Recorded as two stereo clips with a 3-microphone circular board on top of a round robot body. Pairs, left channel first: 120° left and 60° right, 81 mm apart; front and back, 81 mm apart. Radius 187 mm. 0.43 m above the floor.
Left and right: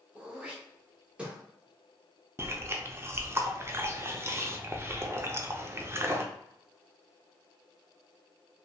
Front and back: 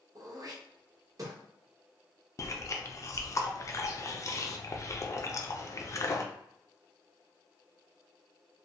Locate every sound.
0.1 s throat clearing: 135° right, 0.8 m
2.4 s chewing: 20° right, 0.7 m